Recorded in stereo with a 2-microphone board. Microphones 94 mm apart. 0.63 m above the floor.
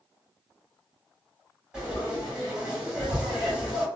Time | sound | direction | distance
1.7 | frying | 10° right (ahead or behind) | 1.9 m